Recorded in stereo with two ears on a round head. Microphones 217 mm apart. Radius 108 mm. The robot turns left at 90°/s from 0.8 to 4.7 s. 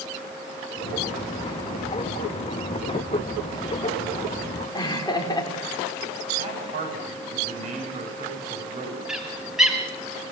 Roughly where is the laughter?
Centre.